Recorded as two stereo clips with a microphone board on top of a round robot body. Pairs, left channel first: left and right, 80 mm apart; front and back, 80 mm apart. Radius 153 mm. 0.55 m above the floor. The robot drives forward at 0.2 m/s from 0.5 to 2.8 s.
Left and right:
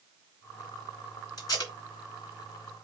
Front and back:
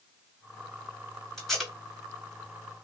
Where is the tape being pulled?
85° left, 1.9 m; by 1.7 s 90° left, 1.9 m.